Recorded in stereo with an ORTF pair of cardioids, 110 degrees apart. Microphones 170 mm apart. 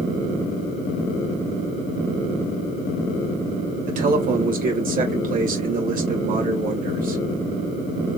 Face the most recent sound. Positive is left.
turn(degrees=-55)